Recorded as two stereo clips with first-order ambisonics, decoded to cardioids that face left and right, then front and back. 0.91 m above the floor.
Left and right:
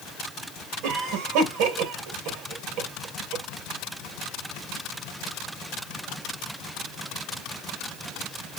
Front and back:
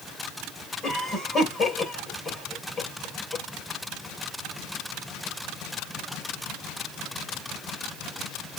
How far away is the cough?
About 2.5 m.